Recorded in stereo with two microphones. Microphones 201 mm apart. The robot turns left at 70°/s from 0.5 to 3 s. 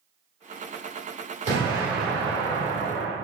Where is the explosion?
140° right, 1.7 m; by 3.1 s 115° left, 1.7 m.